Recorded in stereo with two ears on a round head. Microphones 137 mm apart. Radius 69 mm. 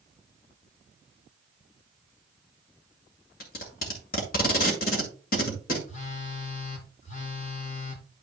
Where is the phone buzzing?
50° left (ahead or behind), 1.5 m.